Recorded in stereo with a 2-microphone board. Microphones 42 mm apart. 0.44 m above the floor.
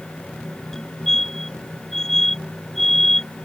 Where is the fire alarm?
10° left (ahead or behind).